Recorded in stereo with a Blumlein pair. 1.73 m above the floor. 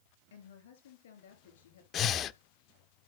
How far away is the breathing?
About 0.5 m.